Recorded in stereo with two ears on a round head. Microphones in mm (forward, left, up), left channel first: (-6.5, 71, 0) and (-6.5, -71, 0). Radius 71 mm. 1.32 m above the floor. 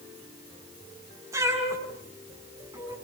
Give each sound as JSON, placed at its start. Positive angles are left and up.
{"t": 1.3, "sound": "a cat meowing", "side_deg": -20, "distance_m": 7.5}